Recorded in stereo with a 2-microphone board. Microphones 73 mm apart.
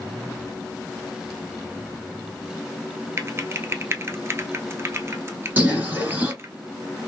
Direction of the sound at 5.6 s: 25° right (ahead or behind).